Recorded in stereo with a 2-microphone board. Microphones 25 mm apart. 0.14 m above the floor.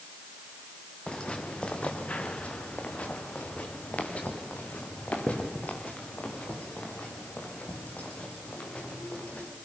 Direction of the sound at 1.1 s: 40° left (ahead or behind).